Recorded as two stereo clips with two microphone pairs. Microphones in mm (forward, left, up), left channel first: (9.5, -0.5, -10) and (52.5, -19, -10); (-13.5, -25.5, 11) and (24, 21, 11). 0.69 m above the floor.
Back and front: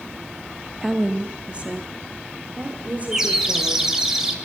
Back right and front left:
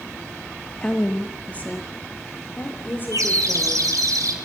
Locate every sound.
0.8 s a woman speaking: 80° right, 0.9 m; by 4.1 s 75° right, 3.5 m
3.1 s a bird: 55° left, 3 m